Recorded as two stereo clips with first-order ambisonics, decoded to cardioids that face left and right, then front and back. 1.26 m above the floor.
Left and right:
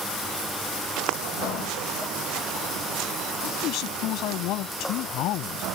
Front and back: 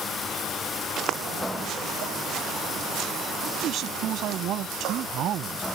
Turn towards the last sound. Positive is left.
turn(degrees=130)